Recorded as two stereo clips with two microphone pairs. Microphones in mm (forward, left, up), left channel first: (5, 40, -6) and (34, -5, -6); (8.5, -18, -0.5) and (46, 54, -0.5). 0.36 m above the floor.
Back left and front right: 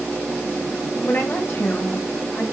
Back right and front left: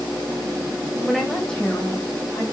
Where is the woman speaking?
145° left, 1.6 m; by 2.4 s 175° right, 2.5 m.